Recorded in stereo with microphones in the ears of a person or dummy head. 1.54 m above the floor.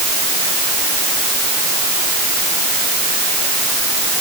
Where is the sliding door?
No sliding door in this recording.